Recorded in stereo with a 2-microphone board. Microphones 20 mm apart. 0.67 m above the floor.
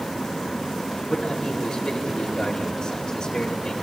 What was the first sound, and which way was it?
A man speaking, 45° left (ahead or behind).